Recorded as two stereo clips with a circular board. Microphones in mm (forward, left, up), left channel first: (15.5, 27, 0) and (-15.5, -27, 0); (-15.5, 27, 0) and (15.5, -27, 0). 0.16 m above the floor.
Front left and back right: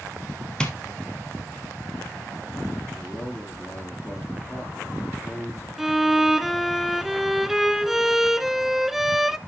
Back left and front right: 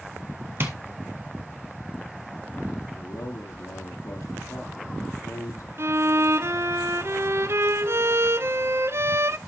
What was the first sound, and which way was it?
Tapping, 10° right.